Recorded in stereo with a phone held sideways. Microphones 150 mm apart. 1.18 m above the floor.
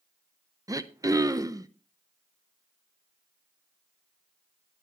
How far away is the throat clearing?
About 0.6 m.